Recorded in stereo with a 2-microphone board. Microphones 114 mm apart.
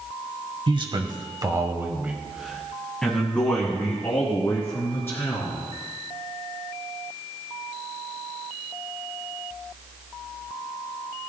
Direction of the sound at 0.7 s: 45° right (ahead or behind).